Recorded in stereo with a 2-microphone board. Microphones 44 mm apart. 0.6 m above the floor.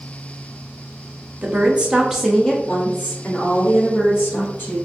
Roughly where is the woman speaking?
Right.